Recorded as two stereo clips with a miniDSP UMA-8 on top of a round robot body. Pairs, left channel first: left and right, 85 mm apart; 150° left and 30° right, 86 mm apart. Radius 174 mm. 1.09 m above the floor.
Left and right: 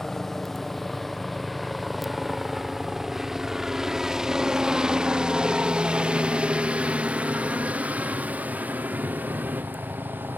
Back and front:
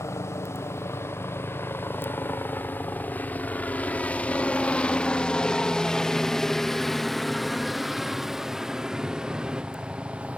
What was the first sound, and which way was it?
A helicopter, 175° left.